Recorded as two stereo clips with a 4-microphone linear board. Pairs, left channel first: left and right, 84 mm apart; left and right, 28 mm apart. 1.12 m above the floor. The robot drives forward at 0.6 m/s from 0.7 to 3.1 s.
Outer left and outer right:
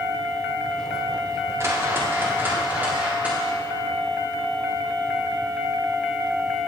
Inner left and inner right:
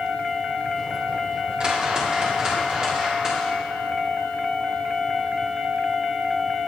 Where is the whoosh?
30° right (ahead or behind), 1.0 m; by 3.5 s 15° right (ahead or behind), 1.6 m.